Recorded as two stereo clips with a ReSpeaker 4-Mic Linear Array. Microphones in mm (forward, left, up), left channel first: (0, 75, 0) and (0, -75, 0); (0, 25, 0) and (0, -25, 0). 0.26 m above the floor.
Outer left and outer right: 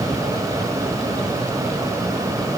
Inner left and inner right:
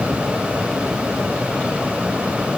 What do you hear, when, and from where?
Only background noise.